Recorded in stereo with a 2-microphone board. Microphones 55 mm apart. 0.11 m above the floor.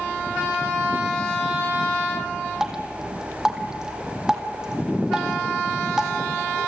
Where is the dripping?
10° right (ahead or behind), 2 m.